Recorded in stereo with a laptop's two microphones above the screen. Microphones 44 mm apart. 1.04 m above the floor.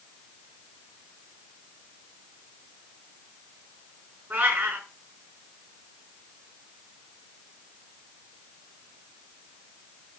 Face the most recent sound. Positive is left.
turn(degrees=-45)  # may be behind; listen again after turning